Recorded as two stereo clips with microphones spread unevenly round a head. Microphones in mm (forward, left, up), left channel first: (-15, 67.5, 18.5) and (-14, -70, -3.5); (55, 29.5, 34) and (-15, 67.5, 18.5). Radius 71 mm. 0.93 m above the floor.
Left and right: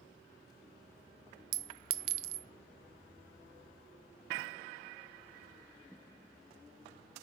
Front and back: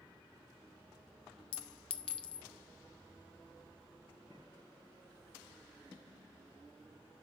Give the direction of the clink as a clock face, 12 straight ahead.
2 o'clock.